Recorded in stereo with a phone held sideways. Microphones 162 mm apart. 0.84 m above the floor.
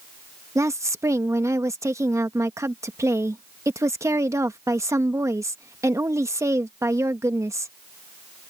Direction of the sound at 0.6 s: 20° right (ahead or behind).